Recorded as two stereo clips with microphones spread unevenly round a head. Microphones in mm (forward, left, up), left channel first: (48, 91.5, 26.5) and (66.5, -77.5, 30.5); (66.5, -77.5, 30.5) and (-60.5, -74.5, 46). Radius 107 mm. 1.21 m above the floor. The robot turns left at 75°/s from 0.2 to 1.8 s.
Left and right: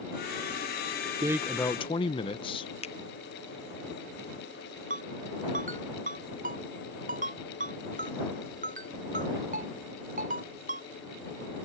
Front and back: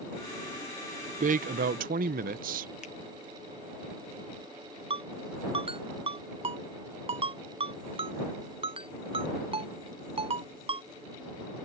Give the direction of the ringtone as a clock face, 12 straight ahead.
5 o'clock.